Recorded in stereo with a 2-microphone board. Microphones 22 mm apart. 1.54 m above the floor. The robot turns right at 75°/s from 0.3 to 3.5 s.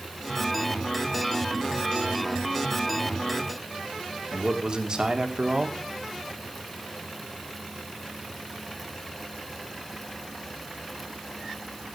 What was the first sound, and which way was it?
A man speaking, 40° right (ahead or behind).